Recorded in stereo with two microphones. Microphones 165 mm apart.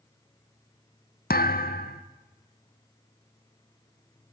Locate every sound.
1.3 s a thud: 75° left (ahead or behind), 1.2 m